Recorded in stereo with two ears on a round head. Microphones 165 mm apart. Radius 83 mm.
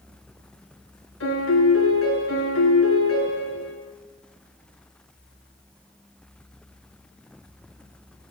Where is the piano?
80° left, 3 m.